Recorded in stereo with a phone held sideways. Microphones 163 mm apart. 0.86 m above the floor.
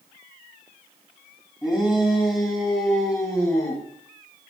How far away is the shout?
About 5.5 m.